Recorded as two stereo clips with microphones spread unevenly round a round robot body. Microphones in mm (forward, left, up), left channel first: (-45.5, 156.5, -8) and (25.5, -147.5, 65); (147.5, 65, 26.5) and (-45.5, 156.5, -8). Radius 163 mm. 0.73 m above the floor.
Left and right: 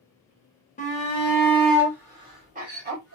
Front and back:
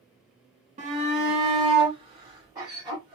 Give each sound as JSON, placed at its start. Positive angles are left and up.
{"t": 0.8, "sound": "a shout", "azimuth_deg": 140, "distance_m": 1.2}